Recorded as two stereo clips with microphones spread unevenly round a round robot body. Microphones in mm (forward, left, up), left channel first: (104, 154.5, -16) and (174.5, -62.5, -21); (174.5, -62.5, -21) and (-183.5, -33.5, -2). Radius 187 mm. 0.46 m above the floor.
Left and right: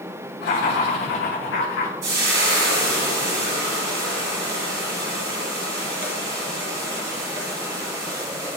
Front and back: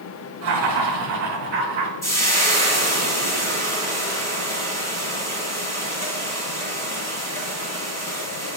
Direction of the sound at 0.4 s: 125° left.